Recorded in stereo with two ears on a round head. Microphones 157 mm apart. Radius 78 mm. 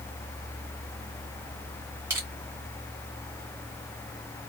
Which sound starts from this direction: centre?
Crushing, at 2.1 s.